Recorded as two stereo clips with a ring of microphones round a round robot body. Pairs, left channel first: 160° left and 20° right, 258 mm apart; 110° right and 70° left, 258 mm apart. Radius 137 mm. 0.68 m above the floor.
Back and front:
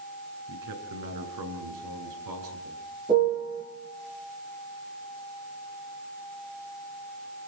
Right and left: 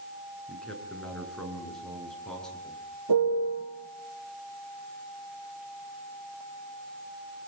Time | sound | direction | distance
0.5 | a man speaking | 25° right | 9 m
3.1 | a piano | 50° left | 8 m